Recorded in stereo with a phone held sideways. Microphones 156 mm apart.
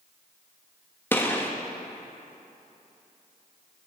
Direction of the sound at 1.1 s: 15° left (ahead or behind).